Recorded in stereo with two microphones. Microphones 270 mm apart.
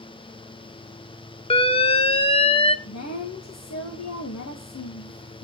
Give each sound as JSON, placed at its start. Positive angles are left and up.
{"t": 1.5, "sound": "an alarm", "side_deg": 20, "distance_m": 0.7}
{"t": 2.9, "sound": "a woman speaking", "side_deg": 80, "distance_m": 1.6}